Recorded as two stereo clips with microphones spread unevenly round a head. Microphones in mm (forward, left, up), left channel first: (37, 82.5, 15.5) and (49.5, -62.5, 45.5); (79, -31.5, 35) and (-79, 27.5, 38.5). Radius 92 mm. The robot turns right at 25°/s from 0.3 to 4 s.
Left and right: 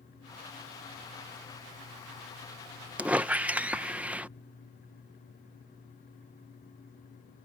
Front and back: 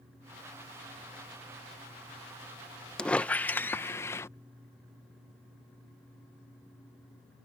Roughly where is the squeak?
Right.